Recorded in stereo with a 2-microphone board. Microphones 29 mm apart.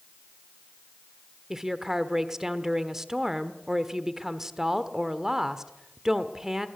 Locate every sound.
1.5 s a woman speaking: 20° right (ahead or behind), 1.1 m